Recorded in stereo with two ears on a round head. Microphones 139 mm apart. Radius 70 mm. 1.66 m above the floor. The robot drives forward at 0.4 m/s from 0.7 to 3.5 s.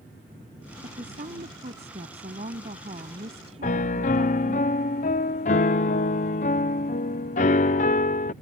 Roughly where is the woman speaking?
Right.